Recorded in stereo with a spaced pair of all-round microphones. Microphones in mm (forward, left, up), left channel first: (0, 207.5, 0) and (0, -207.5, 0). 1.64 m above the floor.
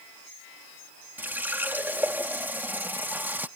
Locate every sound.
1.2 s a running tap: 5° right (ahead or behind)